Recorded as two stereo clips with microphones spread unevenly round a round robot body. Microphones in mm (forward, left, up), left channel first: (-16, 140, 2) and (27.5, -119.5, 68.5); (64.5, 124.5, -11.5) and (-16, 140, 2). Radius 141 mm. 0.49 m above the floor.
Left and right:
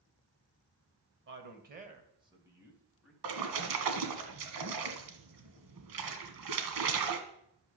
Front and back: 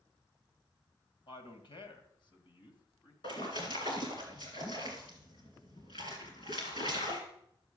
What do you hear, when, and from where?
1.3 s a man speaking: 30° right, 2 m; by 3.1 s 15° left, 3 m
3.2 s a splash: 70° right, 1.9 m